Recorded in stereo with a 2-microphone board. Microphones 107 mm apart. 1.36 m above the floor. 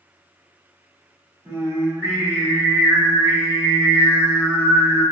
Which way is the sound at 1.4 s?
25° right (ahead or behind).